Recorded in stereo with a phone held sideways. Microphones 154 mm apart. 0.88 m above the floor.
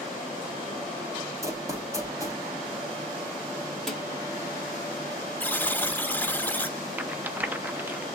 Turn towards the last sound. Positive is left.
turn(degrees=-10)  # may be behind; listen again after turning